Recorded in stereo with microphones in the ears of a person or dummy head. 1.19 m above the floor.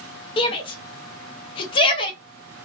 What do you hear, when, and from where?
0.4 s a shout: 25° left (ahead or behind), 0.5 m